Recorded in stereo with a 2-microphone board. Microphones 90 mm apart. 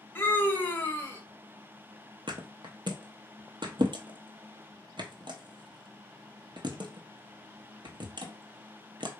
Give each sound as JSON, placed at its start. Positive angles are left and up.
{"t": 0.1, "sound": "a scream", "side_deg": 25, "distance_m": 0.9}
{"t": 2.3, "sound": "a thud", "side_deg": -60, "distance_m": 0.8}